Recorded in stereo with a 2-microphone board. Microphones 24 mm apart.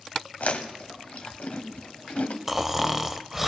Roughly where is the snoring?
Centre.